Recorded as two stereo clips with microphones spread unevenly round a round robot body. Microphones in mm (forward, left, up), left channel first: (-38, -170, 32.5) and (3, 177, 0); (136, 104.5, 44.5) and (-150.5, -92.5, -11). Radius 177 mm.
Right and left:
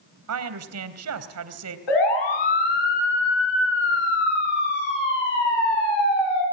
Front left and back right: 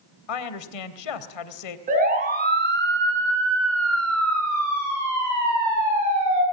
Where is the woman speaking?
40° left, 3 m.